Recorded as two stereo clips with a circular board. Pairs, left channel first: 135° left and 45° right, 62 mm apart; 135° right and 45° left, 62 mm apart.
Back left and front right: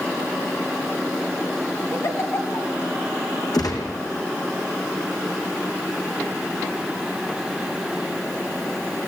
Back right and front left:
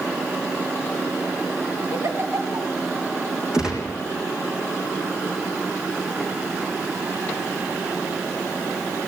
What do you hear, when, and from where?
1.9 s a giggle: 90° left, 1.8 m
3.5 s a gunshot: 125° left, 4 m